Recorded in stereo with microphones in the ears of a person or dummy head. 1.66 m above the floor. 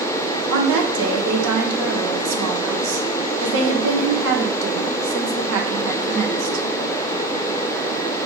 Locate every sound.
0.5 s a woman speaking: 75° right (ahead or behind), 1.0 m